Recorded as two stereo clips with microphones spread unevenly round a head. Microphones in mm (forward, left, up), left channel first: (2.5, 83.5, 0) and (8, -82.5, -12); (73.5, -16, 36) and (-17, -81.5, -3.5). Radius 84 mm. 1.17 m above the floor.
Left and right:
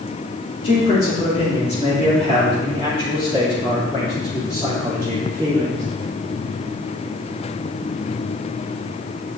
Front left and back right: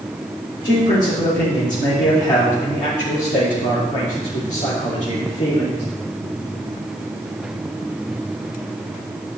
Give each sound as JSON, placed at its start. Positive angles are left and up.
{"t": 0.6, "sound": "a man speaking", "azimuth_deg": 55, "distance_m": 3.5}